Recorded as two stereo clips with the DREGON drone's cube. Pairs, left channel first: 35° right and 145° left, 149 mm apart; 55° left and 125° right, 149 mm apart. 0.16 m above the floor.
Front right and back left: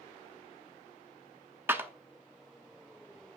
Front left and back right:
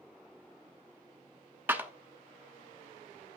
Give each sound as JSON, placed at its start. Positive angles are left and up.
{"t": 1.7, "sound": "a clap", "azimuth_deg": -170, "distance_m": 0.9}